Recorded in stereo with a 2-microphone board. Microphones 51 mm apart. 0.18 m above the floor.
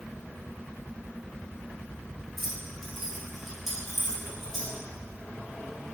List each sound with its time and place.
2.4 s keys jangling: 5° left (ahead or behind), 2.5 m; by 4.7 s 10° right (ahead or behind), 4 m